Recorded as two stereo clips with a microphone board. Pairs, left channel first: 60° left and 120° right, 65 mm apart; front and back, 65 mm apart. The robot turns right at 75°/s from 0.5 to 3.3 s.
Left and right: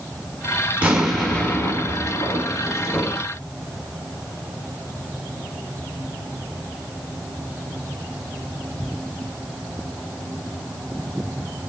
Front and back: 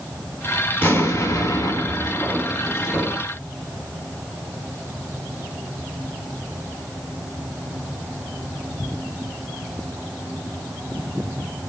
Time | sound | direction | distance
0.8 | an explosion | 50° right | 2.5 m